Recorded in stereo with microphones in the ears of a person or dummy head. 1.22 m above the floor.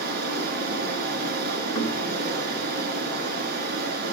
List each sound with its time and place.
0.0 s running water: 60° right (ahead or behind), 3.5 m
1.8 s knocking: 30° left (ahead or behind), 4.5 m